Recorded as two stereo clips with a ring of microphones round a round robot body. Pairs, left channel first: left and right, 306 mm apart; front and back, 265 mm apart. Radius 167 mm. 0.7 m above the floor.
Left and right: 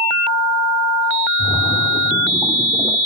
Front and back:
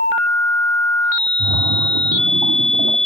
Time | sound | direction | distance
1.4 | a splash | straight behind | 0.9 m